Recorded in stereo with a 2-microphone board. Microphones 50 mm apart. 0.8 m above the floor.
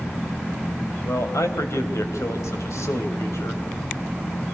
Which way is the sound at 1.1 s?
80° left.